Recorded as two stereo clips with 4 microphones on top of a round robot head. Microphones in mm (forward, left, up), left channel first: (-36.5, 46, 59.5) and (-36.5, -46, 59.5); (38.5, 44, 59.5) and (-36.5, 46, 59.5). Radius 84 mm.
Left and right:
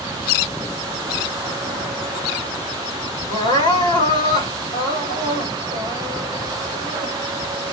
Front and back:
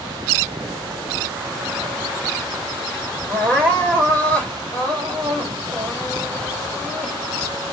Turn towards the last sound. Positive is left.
turn(degrees=70)